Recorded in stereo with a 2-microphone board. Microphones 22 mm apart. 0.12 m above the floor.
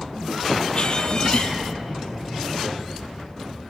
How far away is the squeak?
About 0.7 m.